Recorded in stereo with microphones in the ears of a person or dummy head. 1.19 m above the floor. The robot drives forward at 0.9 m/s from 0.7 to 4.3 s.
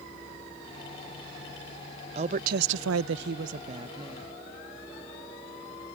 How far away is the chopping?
I don't hear chopping.